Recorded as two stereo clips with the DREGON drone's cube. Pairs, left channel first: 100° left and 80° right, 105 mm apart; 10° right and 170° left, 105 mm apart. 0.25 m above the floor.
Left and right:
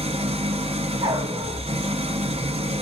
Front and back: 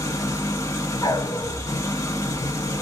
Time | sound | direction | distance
0.0 | an engine running | 70° right | 0.8 m
1.0 | a dog barking | 60° right | 0.7 m